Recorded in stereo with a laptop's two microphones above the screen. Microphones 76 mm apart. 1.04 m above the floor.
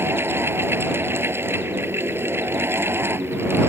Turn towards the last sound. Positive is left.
turn(degrees=-30)  # may be behind; listen again after turning